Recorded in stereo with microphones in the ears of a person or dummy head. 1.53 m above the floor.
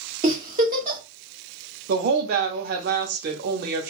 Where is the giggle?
20° right (ahead or behind), 0.9 m.